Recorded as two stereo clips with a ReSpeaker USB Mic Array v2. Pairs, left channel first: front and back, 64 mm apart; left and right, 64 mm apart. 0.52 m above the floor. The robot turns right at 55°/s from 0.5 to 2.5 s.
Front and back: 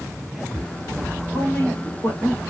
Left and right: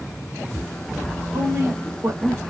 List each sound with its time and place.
1.3 s a woman speaking: 80° right, 2 m; by 2.4 s 25° right, 2 m